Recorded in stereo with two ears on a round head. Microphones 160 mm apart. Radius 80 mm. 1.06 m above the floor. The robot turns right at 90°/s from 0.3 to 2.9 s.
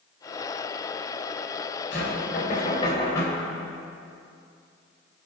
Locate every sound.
1.9 s knocking: 70° left, 4 m; by 3.5 s 160° left, 4 m